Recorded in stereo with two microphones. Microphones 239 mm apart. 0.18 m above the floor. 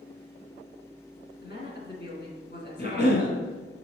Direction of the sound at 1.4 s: 45° left (ahead or behind).